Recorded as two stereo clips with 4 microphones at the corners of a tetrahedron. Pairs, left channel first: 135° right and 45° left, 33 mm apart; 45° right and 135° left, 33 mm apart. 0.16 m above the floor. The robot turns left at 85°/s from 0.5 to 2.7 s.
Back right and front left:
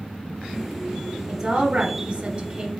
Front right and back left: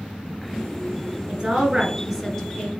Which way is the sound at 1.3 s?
125° left.